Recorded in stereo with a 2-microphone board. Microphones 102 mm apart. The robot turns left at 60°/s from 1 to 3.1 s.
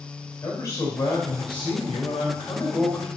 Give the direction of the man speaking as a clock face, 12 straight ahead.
7 o'clock.